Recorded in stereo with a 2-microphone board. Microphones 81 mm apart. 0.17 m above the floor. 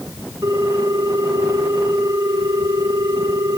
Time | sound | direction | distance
0.4 | a ringtone | 45° right (ahead or behind) | 8.5 m